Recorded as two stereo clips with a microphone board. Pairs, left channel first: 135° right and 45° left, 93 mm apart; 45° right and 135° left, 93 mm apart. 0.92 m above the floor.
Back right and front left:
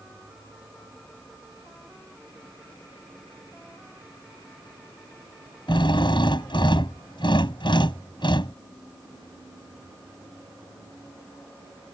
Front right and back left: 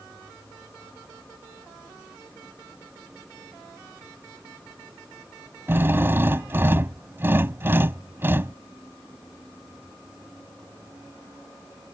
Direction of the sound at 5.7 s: 160° right.